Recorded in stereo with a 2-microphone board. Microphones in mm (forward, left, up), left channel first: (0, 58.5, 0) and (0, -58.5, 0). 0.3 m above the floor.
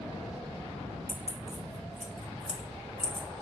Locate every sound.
1.1 s keys jangling: 10° right (ahead or behind), 0.7 m